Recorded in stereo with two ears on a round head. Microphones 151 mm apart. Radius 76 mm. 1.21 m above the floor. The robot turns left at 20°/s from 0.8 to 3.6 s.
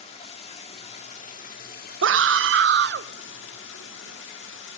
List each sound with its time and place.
0.0 s running water: 140° left, 1.9 m; by 4.8 s 85° left, 1.9 m
2.0 s a scream: 85° right, 0.5 m; by 3.1 s 70° right (ahead or behind), 0.5 m